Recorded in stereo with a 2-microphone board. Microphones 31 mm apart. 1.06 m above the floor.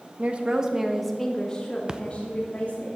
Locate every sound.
0.2 s a woman speaking: 45° right (ahead or behind), 1.5 m; by 2.9 s 45° left (ahead or behind), 3 m
1.9 s a splash: 25° right (ahead or behind), 0.7 m